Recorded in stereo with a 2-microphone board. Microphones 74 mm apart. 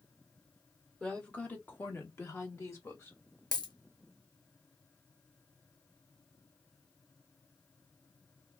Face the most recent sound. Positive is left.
turn(degrees=65)  # may be behind; listen again after turning